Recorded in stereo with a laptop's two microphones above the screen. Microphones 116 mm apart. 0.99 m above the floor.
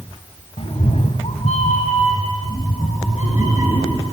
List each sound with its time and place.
0.6 s a cat meowing: 55° left (ahead or behind), 1.2 m; by 4.0 s 80° left, 4.5 m